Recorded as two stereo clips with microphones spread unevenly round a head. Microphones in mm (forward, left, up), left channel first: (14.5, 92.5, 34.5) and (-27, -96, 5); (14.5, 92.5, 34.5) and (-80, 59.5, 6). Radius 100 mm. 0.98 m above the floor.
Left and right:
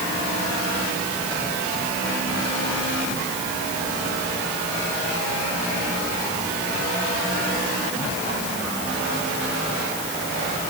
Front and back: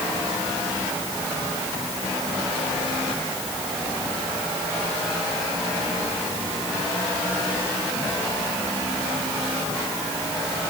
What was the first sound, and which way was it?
Only background noise.